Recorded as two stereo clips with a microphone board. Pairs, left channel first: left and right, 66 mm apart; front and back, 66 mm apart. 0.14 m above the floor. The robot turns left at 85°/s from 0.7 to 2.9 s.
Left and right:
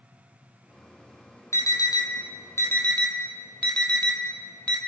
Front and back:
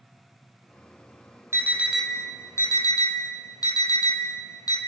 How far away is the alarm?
About 3 m.